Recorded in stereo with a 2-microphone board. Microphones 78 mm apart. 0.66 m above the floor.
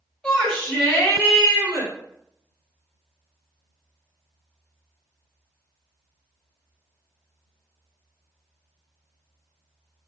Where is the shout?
20° left (ahead or behind), 1.4 m; by 1.9 s 50° left (ahead or behind), 1.8 m.